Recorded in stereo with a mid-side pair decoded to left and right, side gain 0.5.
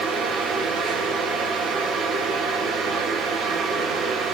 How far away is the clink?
No clink in this recording.